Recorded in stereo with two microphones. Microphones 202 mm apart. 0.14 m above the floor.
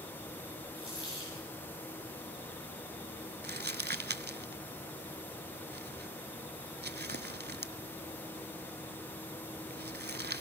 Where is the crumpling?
55° right (ahead or behind), 0.6 m.